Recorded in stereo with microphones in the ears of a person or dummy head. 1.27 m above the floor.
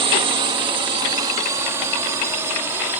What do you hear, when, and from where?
0.0 s a drone: 25° right (ahead or behind); by 3.0 s 10° right (ahead or behind)